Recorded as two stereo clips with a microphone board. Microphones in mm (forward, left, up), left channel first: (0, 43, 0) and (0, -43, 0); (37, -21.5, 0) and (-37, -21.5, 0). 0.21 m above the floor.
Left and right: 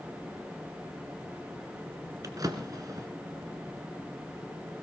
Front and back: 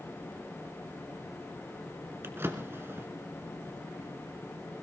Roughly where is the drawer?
Behind right.